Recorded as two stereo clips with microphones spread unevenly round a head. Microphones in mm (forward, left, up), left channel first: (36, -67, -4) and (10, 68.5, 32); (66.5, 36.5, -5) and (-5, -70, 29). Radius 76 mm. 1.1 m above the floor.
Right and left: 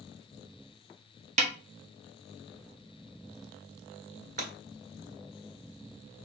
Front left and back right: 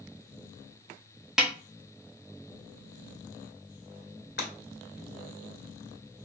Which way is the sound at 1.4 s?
150° left.